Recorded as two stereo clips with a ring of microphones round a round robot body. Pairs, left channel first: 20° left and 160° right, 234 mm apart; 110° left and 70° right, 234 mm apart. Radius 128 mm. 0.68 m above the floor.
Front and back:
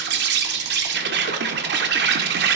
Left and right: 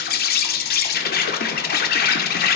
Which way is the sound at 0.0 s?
160° left.